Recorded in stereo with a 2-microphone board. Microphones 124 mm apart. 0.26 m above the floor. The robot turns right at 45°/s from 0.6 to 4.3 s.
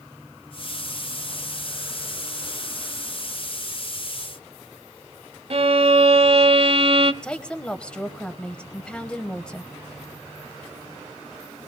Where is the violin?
50° right (ahead or behind), 0.7 m.